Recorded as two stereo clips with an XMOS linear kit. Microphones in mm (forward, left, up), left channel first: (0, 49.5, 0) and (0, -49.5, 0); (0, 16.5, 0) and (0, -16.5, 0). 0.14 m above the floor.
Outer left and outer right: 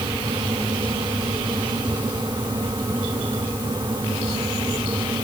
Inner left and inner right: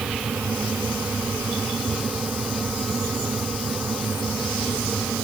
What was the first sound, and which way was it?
Only background noise.